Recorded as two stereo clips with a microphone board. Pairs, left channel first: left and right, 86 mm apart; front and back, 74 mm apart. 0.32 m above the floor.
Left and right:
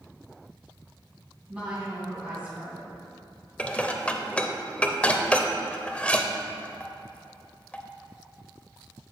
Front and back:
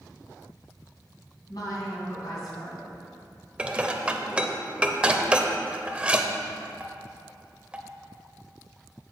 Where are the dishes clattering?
135° left, 0.5 m.